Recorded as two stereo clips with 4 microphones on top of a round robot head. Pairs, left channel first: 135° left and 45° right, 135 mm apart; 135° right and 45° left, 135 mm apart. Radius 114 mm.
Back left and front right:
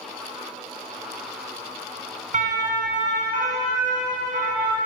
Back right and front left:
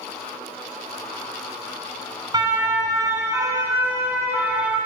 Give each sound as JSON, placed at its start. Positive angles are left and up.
{"t": 2.3, "sound": "a siren", "azimuth_deg": -15, "distance_m": 8.5}